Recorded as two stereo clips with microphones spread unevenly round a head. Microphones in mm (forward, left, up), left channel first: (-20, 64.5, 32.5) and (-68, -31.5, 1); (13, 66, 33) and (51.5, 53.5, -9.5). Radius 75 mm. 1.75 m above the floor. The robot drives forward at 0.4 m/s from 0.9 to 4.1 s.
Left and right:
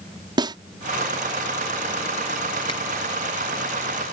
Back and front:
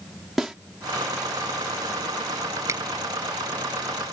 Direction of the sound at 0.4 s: 170° right.